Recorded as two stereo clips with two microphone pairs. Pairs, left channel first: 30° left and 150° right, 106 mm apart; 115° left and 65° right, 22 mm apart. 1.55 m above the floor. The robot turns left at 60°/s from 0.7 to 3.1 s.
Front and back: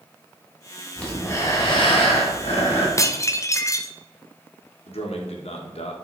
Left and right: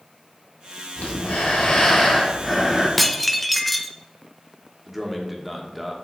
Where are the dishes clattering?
35° left, 0.6 m; by 3.9 s 25° left, 0.6 m.